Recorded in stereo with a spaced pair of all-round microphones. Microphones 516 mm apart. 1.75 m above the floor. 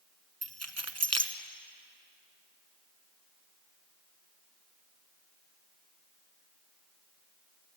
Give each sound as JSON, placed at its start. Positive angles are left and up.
{"t": 0.4, "sound": "keys jangling", "side_deg": -30, "distance_m": 1.0}